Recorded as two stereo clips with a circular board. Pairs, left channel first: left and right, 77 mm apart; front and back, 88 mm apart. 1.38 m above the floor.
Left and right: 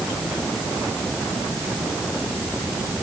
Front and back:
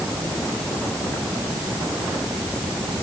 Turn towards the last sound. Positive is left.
No sound to turn to.